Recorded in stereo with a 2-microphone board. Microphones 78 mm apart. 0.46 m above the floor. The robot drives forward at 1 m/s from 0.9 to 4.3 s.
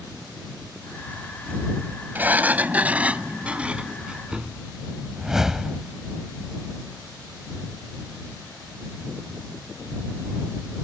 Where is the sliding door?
25° right (ahead or behind); by 4.6 s 15° right (ahead or behind).